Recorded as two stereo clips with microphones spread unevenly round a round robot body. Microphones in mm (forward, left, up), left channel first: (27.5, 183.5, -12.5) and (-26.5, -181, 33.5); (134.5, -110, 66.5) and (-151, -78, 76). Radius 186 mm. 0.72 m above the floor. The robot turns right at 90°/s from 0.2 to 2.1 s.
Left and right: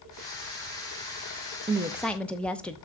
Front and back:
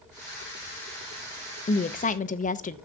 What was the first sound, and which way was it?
A woman speaking, 25° right.